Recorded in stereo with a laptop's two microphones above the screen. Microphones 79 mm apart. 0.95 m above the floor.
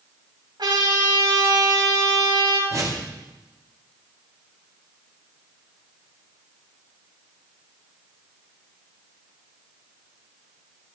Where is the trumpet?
65° right (ahead or behind), 6.5 m.